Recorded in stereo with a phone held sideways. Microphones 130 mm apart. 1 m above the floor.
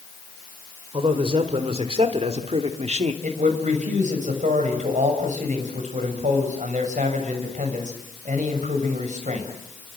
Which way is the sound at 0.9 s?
45° right (ahead or behind).